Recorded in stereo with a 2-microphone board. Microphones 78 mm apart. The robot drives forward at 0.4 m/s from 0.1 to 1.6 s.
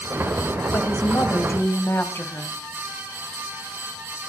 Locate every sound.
0.7 s a woman speaking: 35° left (ahead or behind), 1.8 m; by 2.5 s 30° left (ahead or behind), 2 m